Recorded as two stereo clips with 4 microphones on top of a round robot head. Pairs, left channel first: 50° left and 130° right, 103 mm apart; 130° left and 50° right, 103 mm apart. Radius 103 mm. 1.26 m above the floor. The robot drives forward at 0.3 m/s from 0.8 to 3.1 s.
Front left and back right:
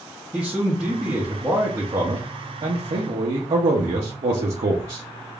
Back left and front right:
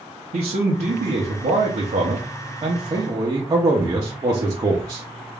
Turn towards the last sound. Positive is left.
turn(degrees=-105)